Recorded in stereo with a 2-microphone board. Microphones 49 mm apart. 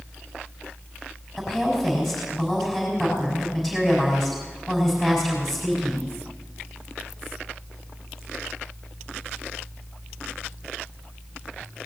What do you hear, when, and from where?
1.4 s a woman speaking: 5° left (ahead or behind), 5 m